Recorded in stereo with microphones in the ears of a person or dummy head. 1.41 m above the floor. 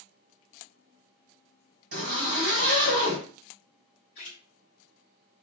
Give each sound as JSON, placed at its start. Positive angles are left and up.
{"t": 1.9, "sound": "a zipper", "side_deg": -45, "distance_m": 1.7}
{"t": 4.2, "sound": "a splash", "side_deg": 35, "distance_m": 1.0}